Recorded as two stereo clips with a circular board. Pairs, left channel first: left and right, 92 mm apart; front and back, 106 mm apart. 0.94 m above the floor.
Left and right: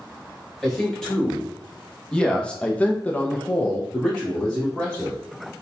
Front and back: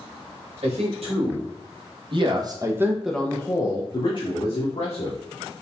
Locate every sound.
0.6 s a man speaking: 175° left, 1.9 m; by 5.2 s 5° left, 1.6 m